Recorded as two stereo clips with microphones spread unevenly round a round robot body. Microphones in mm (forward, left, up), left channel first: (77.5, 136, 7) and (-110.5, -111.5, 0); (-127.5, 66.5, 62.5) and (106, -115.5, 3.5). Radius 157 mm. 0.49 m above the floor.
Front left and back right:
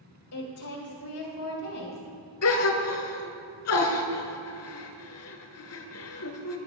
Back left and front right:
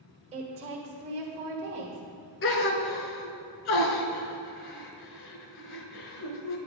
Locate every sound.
0.3 s a woman speaking: 20° left, 1.6 m
2.4 s a gasp: 95° left, 1.1 m